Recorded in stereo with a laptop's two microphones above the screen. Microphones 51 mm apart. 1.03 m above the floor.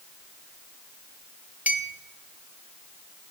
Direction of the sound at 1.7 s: 35° right (ahead or behind).